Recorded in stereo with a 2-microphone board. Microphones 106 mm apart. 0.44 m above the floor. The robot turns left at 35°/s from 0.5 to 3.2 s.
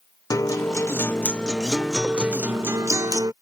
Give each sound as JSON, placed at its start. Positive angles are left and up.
{"t": 0.3, "sound": "a guitar", "azimuth_deg": 45}